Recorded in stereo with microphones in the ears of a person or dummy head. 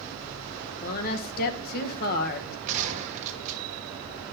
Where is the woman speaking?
50° left (ahead or behind), 1.3 m.